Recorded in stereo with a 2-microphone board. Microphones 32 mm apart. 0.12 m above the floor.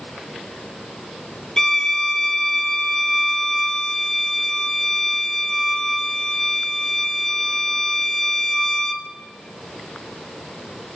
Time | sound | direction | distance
1.6 | a violin | 20° left (ahead or behind) | 0.5 m